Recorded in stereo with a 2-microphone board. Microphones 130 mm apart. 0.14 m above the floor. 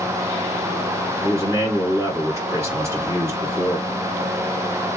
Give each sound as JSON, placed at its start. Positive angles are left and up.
{"t": 1.2, "sound": "a man speaking", "side_deg": -20, "distance_m": 1.8}